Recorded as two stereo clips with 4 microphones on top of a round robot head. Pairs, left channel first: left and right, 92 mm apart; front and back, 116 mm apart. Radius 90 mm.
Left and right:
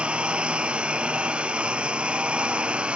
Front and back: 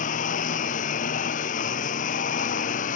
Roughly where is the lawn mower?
Ahead.